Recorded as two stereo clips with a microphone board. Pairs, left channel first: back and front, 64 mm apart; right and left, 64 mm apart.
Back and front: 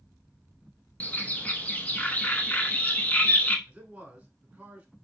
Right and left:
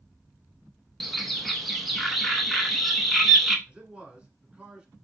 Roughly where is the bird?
Behind.